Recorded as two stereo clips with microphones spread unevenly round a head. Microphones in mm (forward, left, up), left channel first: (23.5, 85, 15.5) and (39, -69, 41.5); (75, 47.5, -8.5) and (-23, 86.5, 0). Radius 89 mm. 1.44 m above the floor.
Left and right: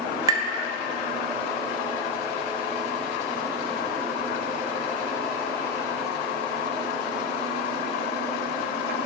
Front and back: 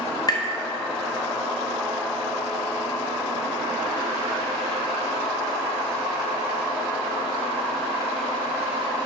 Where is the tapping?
50° right, 0.7 m.